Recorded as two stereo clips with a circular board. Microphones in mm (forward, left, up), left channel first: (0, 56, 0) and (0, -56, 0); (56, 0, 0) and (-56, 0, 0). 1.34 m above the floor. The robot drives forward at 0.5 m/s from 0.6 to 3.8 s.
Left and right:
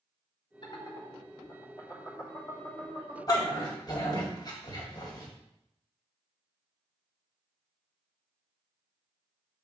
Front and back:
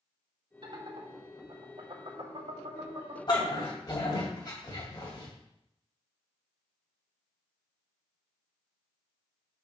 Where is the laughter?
135° left, 1.7 m; by 3.2 s 155° left, 3 m.